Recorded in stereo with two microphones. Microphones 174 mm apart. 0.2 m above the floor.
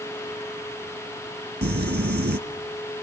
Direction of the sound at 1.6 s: 75° right (ahead or behind).